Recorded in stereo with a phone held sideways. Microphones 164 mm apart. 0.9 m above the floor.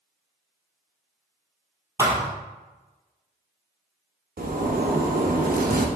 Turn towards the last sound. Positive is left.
turn(degrees=-70)  # may be behind; listen again after turning